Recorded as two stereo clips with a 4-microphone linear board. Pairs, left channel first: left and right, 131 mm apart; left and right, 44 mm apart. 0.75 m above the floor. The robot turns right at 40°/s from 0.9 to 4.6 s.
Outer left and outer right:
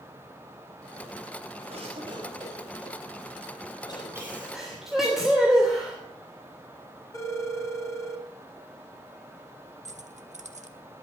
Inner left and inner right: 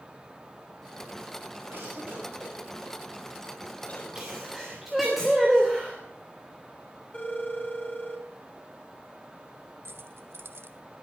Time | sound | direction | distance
1.7 | a cough | 55° right (ahead or behind) | 5 m
4.2 | a sneeze | 20° right (ahead or behind) | 3 m
7.1 | a phone ringing | 25° left (ahead or behind) | 4 m
9.8 | keys jangling | 65° right (ahead or behind) | 1.1 m